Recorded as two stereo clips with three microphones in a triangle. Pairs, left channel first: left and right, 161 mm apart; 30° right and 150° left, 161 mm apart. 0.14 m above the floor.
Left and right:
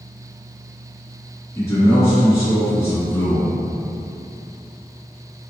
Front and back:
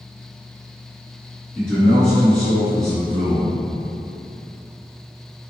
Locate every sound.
1.6 s a man speaking: 50° left, 1.6 m